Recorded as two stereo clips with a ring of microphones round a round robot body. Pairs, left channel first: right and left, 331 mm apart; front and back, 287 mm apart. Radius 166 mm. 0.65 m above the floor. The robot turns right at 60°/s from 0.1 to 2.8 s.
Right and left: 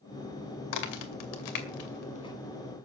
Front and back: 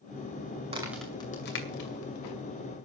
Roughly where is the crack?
Right.